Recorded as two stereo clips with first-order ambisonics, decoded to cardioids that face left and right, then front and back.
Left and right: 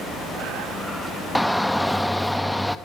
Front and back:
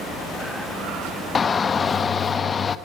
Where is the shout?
5° left, 0.9 m.